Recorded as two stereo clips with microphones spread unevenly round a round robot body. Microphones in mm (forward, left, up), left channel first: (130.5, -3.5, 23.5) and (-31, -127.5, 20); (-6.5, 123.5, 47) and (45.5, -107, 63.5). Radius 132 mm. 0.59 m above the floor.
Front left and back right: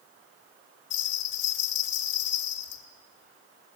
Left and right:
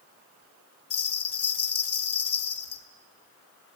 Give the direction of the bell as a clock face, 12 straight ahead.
9 o'clock.